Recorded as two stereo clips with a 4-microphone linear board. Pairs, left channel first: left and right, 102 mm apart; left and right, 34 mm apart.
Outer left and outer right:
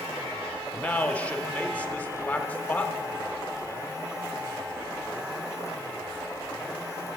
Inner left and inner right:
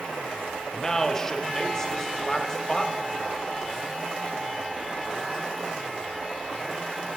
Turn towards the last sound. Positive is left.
turn(degrees=15)  # may be behind; listen again after turning